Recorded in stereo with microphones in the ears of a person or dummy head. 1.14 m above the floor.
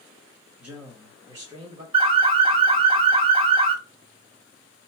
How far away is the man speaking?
About 1.6 m.